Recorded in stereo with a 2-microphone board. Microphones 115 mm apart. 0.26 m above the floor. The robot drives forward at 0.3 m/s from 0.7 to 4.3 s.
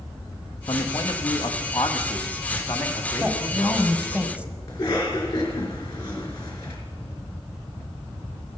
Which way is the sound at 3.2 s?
10° right (ahead or behind).